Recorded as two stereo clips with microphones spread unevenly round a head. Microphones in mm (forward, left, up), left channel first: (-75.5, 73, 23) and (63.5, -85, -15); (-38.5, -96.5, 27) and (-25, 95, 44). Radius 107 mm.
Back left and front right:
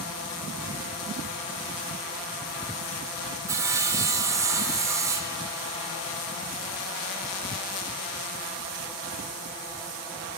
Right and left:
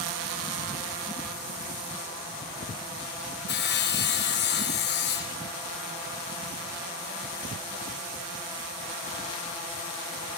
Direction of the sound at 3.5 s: 120° right.